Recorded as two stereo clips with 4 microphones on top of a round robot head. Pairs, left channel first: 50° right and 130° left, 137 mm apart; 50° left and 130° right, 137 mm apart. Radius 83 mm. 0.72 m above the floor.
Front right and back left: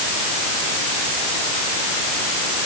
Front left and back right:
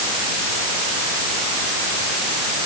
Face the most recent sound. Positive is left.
No sound to turn to.